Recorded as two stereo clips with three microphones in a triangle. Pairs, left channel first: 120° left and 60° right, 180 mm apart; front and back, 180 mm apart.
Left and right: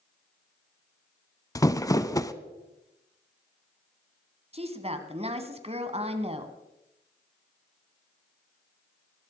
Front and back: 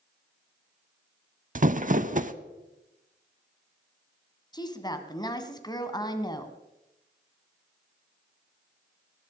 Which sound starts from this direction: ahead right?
A woman speaking, at 4.5 s.